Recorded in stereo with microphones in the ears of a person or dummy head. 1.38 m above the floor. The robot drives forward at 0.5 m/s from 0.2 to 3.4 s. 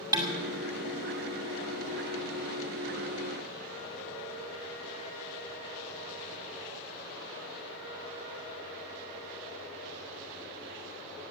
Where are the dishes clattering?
15° right (ahead or behind), 2 m.